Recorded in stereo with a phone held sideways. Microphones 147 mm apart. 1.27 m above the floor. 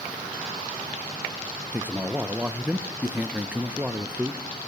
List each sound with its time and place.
1.7 s a man speaking: 10° right (ahead or behind), 0.7 m